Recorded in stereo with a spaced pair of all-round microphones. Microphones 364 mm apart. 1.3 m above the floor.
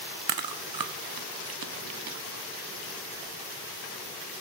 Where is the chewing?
65° right (ahead or behind), 0.6 m.